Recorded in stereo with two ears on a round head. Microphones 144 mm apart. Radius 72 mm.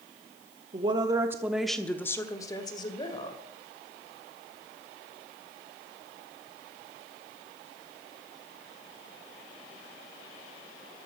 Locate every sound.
0.7 s a woman speaking: 30° right (ahead or behind), 1.1 m; by 3.4 s 30° left (ahead or behind), 2 m